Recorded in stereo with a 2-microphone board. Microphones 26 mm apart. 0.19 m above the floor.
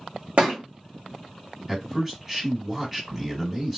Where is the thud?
50° right (ahead or behind), 1.7 m.